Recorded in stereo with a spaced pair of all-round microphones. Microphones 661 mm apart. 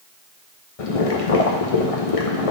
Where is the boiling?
60° left (ahead or behind), 0.8 m.